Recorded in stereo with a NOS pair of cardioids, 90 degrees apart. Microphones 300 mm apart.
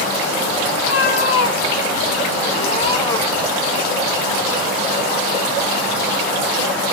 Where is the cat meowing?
55° left, 2.0 m; by 3.5 s straight ahead, 1.1 m.